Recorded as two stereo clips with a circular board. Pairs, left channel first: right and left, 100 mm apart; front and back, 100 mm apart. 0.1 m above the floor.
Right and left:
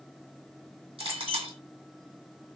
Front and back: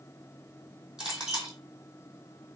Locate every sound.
1.0 s a clink: 95° left, 2.5 m